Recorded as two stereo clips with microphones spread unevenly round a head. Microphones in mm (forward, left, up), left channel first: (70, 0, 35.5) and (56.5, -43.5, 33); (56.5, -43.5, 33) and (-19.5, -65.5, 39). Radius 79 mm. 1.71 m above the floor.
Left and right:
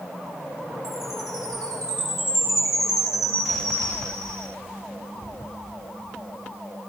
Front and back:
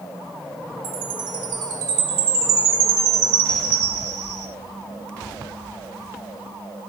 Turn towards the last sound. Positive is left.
turn(degrees=165)